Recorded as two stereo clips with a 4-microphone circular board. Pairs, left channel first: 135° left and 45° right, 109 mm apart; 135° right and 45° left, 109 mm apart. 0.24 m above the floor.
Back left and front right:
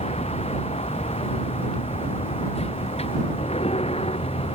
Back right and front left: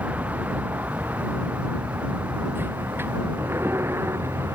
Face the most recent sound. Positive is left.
turn(degrees=115)